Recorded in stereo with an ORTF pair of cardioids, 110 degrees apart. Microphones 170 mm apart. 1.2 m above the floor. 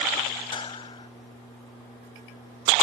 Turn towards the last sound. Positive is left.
turn(degrees=30)